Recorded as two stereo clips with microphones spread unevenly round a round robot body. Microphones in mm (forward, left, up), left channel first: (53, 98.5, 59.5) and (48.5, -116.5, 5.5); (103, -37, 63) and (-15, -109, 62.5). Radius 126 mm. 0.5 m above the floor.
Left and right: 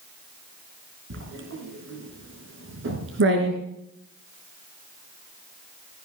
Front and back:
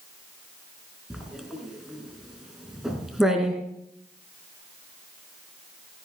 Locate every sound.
1.1 s writing: 60° right, 4.5 m